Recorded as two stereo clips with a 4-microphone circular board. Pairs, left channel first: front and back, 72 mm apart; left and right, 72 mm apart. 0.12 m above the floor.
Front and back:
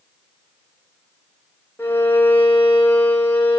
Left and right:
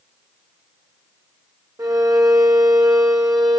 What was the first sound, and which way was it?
A violin, 65° right.